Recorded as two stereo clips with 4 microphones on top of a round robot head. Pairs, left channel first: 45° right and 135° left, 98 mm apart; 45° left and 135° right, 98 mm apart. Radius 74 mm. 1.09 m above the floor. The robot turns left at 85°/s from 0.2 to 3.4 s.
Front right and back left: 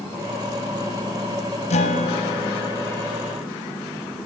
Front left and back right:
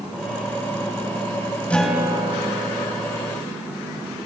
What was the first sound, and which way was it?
A guitar, 30° right.